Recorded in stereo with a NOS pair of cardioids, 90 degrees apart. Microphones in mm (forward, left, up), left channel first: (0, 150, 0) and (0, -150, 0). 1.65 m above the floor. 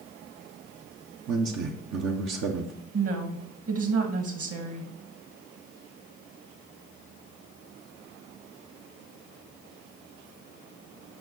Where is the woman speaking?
50° right, 2.0 m.